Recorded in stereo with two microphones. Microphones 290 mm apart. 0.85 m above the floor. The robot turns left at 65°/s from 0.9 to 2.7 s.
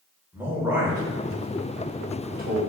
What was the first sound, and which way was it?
A man speaking, 10° right (ahead or behind).